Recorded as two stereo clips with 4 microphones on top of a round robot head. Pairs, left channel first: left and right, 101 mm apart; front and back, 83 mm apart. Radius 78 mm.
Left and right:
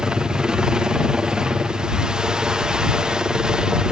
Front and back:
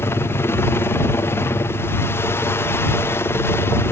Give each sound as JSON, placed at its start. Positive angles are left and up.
{"t": 0.0, "sound": "a helicopter", "azimuth_deg": -15}